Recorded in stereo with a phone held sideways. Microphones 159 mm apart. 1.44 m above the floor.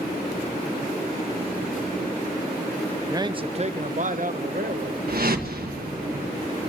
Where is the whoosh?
70° right (ahead or behind), 1.6 m.